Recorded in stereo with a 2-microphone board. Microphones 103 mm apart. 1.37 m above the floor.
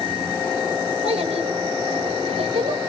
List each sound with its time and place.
1.0 s a child speaking: 85° right, 5 m